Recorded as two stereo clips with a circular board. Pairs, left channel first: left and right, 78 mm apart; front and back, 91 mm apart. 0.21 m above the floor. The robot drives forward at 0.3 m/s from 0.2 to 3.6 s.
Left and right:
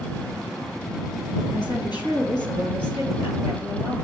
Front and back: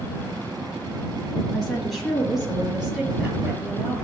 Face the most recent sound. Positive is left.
turn(degrees=100)